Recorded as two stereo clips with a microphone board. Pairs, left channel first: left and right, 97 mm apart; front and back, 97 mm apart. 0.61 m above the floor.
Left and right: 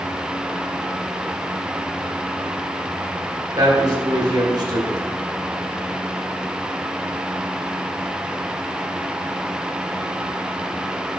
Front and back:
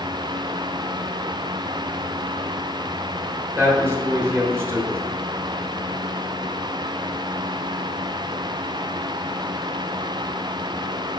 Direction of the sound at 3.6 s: 125° right.